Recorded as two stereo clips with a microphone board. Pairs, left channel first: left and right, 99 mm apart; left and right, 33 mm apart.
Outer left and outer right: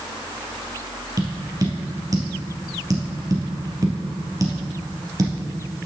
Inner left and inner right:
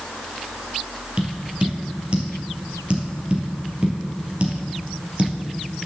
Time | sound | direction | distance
1.2 | tapping | 35° right (ahead or behind) | 2.5 m